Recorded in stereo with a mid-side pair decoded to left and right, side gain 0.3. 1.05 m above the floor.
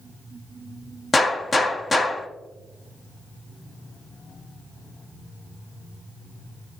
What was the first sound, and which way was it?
A gunshot, 40° left.